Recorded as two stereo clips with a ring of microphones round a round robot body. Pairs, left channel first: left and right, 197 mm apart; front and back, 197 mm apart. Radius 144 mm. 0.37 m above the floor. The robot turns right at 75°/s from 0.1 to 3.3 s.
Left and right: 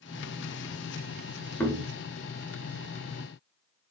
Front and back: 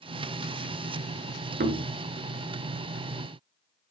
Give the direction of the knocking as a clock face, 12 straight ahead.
6 o'clock.